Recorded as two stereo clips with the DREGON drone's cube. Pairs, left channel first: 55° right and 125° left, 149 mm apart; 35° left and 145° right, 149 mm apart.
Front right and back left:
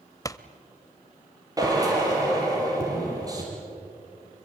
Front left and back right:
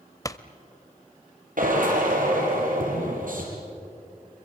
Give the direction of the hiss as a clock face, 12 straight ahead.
No hiss in this recording.